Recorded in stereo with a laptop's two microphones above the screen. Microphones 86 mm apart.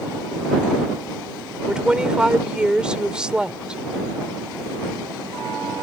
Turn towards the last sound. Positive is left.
turn(degrees=-10)  # may be behind; listen again after turning